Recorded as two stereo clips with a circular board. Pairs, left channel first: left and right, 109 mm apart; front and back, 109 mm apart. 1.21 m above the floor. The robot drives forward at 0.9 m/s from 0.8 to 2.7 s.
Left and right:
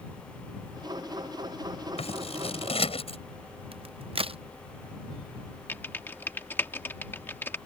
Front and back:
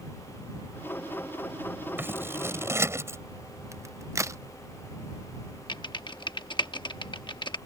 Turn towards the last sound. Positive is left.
turn(degrees=25)